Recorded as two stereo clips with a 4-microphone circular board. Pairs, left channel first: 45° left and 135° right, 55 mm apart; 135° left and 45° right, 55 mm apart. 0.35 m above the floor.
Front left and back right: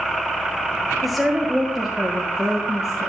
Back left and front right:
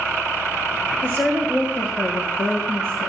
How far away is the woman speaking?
About 1.8 m.